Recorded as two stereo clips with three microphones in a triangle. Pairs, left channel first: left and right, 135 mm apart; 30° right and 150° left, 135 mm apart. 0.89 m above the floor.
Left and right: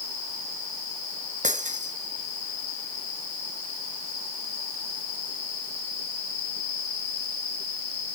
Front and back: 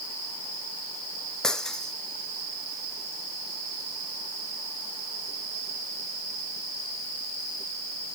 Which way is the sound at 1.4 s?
115° right.